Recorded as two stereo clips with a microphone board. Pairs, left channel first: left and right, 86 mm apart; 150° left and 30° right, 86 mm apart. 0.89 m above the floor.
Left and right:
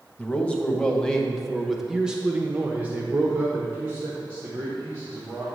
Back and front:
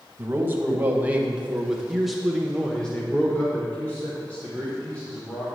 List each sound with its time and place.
0.2 s a man speaking: 25° left, 1.2 m; by 5.6 s 150° right, 2 m